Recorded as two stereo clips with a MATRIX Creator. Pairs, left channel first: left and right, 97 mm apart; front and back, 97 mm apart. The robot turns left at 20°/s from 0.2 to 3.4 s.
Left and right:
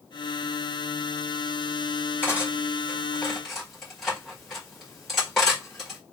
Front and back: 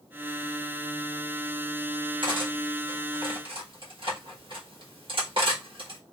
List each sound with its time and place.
2.2 s cutlery clinking: 160° right, 1.4 m; by 6.0 s 175° left, 1.4 m